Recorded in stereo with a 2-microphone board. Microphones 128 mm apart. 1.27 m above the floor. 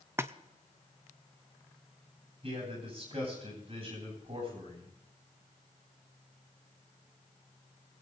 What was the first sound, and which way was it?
A splash, 20° right (ahead or behind).